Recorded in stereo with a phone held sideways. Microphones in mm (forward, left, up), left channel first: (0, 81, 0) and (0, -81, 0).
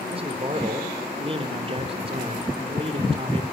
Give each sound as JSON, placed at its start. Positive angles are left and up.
{"t": 0.1, "sound": "a man speaking", "side_deg": -35, "distance_m": 3.5}